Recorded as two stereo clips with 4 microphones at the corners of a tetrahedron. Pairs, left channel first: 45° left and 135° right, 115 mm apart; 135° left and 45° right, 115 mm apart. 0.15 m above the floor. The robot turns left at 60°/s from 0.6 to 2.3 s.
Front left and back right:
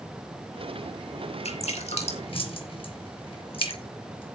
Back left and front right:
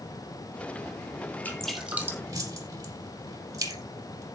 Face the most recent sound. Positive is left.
turn(degrees=10)